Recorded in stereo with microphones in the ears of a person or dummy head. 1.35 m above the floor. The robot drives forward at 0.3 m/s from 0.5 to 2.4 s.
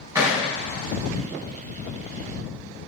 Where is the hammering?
15° right (ahead or behind), 4 m.